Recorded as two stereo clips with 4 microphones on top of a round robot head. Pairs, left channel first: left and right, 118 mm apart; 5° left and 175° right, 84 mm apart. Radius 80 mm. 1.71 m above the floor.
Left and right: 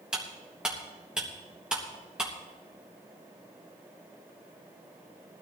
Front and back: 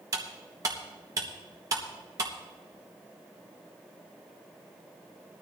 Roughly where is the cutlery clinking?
Behind.